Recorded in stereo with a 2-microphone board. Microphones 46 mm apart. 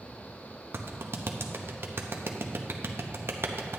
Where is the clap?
60° right (ahead or behind), 0.8 m.